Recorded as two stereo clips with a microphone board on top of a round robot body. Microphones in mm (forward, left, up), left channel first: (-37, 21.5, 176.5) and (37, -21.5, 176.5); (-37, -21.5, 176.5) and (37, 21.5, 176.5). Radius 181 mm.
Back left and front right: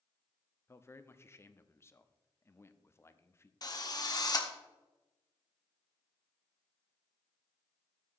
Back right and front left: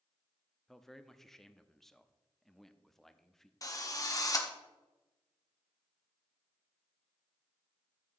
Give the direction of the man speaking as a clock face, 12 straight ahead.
8 o'clock.